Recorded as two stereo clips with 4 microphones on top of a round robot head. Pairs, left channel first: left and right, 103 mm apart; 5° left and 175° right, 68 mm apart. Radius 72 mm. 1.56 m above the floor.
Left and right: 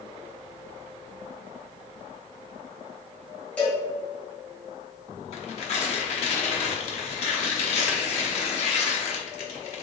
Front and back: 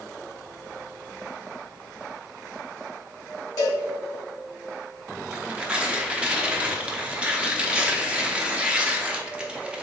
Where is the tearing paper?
110° left, 0.8 m.